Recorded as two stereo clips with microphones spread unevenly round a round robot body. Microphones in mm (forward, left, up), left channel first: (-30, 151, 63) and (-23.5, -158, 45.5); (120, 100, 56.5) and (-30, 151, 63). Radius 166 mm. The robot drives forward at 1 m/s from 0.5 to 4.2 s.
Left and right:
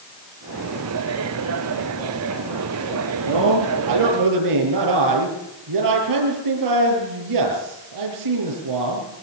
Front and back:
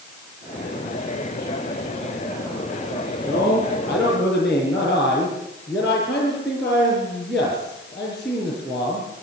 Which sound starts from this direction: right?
A man speaking, at 3.2 s.